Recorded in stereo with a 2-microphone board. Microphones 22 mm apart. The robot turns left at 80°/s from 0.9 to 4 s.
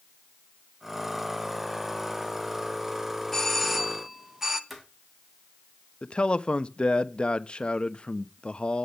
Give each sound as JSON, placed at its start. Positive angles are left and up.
{"t": 3.3, "sound": "a doorbell", "azimuth_deg": 35, "distance_m": 0.9}
{"t": 4.7, "sound": "footsteps", "side_deg": -10, "distance_m": 3.0}
{"t": 6.0, "sound": "a man speaking", "side_deg": 50, "distance_m": 0.7}